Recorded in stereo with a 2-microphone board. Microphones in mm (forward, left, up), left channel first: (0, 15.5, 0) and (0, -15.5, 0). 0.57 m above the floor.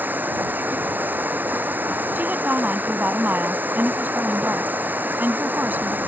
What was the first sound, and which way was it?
Running water, 75° right (ahead or behind).